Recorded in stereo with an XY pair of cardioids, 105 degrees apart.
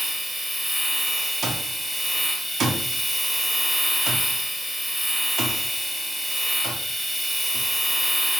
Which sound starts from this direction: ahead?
A machine running, at 0.0 s.